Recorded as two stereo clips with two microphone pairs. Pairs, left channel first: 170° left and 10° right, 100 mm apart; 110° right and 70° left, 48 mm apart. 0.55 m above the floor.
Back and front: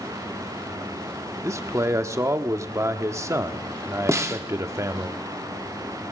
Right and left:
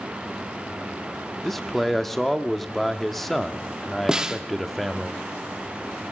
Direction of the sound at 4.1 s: 15° left.